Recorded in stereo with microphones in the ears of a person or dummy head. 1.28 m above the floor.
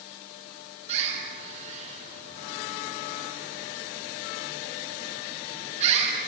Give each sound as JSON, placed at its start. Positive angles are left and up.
{"t": 0.9, "sound": "a bird", "side_deg": -45, "distance_m": 4.0}